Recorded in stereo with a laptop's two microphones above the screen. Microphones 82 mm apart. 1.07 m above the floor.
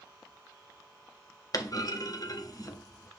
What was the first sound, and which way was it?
A clunk, 50° left (ahead or behind).